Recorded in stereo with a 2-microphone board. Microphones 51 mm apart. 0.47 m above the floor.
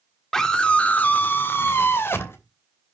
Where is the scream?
10° left (ahead or behind), 1.4 m; by 2.4 s 55° left (ahead or behind), 2.5 m.